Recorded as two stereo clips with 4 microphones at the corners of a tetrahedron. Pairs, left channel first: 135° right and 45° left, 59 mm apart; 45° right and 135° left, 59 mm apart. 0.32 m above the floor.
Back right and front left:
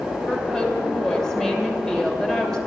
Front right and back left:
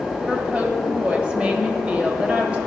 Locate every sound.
0.3 s a woman speaking: 155° left, 1.3 m